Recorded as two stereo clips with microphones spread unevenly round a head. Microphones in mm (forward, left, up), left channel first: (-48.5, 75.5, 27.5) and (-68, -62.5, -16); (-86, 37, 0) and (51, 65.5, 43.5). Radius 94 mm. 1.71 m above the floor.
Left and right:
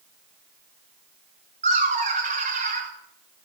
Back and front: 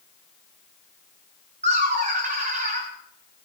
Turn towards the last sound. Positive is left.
turn(degrees=-40)